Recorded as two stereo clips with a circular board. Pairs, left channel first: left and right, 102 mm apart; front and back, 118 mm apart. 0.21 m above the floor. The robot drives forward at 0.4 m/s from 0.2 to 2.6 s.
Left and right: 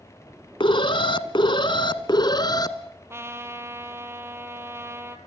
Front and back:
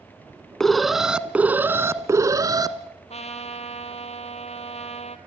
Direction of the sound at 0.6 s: 85° left.